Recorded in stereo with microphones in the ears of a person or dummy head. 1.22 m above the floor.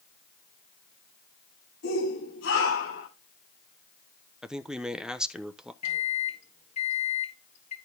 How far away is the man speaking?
About 0.9 m.